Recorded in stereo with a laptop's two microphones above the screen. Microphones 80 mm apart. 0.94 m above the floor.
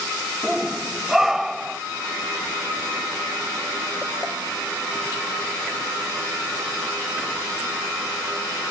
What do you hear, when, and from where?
0.4 s a shout: 5° right (ahead or behind)